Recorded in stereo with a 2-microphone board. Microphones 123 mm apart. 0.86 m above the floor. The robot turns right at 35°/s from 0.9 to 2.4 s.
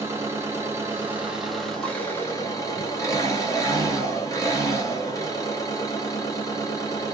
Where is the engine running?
25° right, 1.2 m; by 7.1 s 30° left, 1.2 m.